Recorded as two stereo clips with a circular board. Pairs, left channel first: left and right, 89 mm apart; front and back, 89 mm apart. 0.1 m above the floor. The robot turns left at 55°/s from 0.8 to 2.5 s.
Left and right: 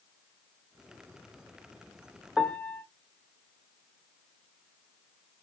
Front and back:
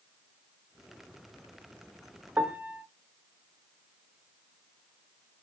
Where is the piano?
140° left, 0.6 m; by 2.8 s 135° left, 0.6 m.